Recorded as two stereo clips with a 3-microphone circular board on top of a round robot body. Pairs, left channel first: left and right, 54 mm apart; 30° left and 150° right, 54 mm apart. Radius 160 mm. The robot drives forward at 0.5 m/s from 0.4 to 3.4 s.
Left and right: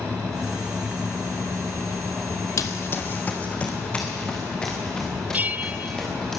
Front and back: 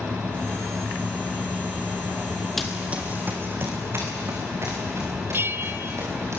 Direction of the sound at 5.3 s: 135° right.